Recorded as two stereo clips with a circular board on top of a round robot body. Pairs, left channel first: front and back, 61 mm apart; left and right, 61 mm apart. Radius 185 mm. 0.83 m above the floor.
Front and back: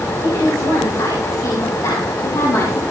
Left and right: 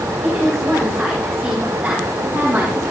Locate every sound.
0.2 s a woman speaking: 5° right, 6.5 m; by 2.8 s 25° right, 4 m